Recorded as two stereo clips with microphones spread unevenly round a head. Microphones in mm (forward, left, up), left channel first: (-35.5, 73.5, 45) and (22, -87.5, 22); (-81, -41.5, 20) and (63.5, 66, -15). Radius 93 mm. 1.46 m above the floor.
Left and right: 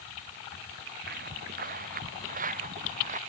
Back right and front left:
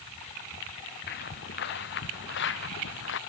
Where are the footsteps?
105° right; by 3.2 s 120° right.